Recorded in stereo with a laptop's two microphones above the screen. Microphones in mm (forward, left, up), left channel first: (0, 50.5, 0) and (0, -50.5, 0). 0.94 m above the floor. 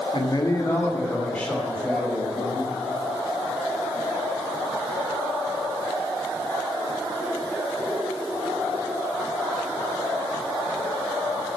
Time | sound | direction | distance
0.1 | a man speaking | 50° left (ahead or behind) | 1.4 m